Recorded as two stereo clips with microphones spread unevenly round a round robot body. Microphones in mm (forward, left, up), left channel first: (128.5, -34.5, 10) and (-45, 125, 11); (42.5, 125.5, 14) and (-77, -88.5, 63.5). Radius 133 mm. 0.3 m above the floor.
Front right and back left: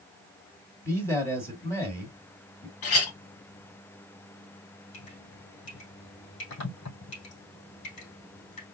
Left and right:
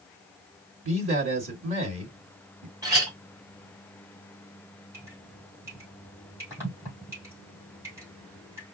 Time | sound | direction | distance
0.8 | a man speaking | 115° right | 1.8 m
2.8 | a clink | 40° right | 1.6 m
4.9 | dripping | 40° right | 3.5 m